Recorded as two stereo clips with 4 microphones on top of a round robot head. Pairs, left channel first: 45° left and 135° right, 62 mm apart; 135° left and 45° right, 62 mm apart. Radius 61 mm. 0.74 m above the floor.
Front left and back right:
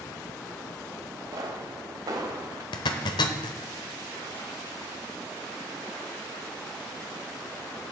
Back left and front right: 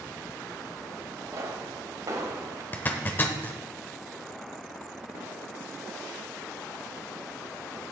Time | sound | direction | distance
1.3 | a pop | 95° right | 1.2 m
2.7 | a zipper | 65° left | 0.8 m